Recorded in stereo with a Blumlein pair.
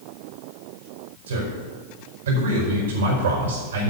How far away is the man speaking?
About 5 m.